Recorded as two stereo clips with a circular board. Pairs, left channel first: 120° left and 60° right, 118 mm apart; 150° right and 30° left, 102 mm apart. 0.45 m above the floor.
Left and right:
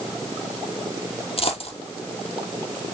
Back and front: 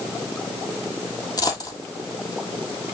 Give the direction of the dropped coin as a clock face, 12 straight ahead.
7 o'clock.